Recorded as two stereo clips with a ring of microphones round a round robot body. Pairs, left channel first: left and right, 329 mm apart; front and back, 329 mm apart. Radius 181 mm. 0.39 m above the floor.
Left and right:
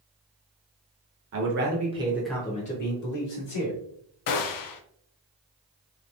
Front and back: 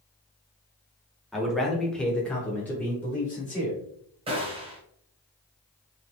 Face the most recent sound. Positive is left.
turn(degrees=105)